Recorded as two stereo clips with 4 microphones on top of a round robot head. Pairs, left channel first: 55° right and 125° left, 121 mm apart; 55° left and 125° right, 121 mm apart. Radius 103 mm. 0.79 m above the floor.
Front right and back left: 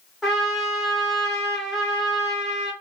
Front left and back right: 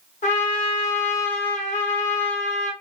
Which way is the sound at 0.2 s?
30° left.